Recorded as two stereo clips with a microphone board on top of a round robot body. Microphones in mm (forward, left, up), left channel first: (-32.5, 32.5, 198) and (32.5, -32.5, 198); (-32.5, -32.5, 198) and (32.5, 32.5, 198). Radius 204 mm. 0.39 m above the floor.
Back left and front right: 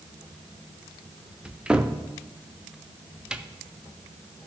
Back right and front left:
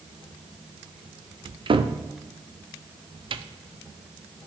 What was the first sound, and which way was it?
A cupboard door, 35° left.